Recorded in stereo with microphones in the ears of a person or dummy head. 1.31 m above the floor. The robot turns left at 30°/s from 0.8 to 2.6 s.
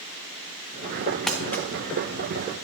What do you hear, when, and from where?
1.3 s crumpling: 5° left (ahead or behind), 0.9 m; by 1.6 s 15° left (ahead or behind), 0.9 m